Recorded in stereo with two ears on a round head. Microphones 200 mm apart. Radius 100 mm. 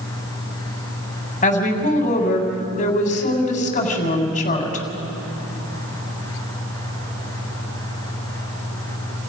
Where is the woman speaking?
35° left (ahead or behind), 3.5 m.